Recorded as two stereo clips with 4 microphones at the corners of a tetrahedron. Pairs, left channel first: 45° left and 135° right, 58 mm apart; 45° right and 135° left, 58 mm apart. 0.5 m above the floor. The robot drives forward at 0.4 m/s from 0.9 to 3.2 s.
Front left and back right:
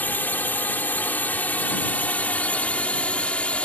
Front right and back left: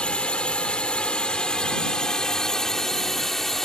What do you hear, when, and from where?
0.0 s a drone: 15° left; by 3.7 s 30° left